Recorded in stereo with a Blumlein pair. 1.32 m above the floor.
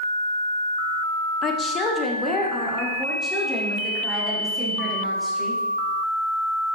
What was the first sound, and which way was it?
A woman speaking, 30° left.